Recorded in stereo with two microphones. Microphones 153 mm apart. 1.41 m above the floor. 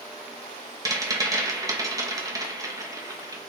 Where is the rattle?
20° right (ahead or behind), 0.8 m.